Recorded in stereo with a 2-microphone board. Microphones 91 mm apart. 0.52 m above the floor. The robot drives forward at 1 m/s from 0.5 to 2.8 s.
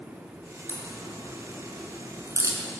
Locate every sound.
0.7 s a crack: 25° right (ahead or behind), 5.5 m; by 2.6 s 40° right (ahead or behind), 4 m